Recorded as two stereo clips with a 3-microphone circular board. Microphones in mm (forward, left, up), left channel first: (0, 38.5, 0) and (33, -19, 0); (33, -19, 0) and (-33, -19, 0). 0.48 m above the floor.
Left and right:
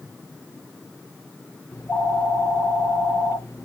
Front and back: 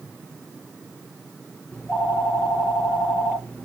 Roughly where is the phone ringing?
Left.